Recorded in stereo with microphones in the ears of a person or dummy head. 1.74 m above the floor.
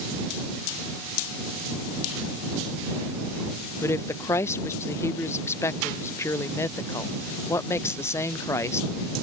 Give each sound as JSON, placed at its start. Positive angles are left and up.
{"t": 3.8, "sound": "a woman speaking", "side_deg": 15}